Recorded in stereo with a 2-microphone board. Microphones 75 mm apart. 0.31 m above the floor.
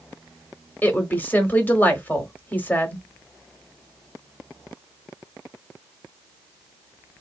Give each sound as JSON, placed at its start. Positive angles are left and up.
{"t": 0.8, "sound": "a woman speaking", "side_deg": 25, "distance_m": 1.0}